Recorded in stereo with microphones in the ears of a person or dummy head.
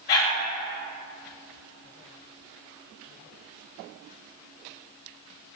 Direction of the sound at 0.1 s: 45° left (ahead or behind).